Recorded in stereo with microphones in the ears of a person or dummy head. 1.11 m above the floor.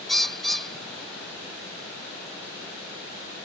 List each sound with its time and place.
0.1 s a bird: 5° left (ahead or behind)